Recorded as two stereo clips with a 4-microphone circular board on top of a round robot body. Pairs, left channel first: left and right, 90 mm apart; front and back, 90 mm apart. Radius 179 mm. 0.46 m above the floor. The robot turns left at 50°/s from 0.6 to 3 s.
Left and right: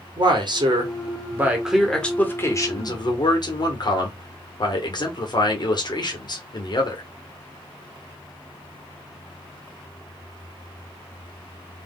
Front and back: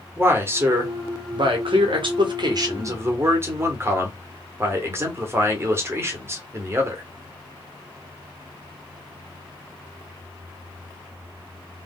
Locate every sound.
0.2 s a man speaking: 120° right, 1.8 m; by 7.0 s 120° left, 1.8 m